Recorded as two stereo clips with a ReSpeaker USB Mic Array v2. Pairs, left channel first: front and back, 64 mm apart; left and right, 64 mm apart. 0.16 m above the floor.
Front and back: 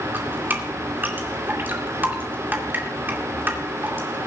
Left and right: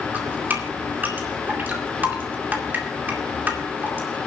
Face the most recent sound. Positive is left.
turn(degrees=-140)